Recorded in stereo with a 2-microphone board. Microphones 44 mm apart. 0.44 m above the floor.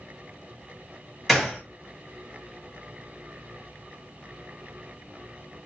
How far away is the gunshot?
About 1.8 m.